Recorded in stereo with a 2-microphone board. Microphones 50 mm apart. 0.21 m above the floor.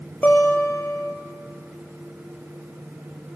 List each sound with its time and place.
0.2 s a guitar: 40° left (ahead or behind), 2 m